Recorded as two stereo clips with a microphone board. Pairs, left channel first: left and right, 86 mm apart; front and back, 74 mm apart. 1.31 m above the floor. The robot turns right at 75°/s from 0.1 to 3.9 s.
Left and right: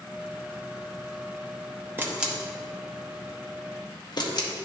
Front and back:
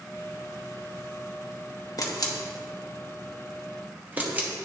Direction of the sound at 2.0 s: 30° right.